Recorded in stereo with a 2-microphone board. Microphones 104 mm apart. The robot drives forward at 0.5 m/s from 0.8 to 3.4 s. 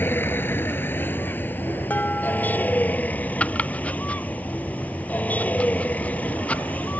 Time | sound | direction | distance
0.0 | a vehicle | 20° left (ahead or behind) | ?
1.9 | dishes clattering | 15° left (ahead or behind) | ?
3.4 | chopping | 15° left (ahead or behind) | ?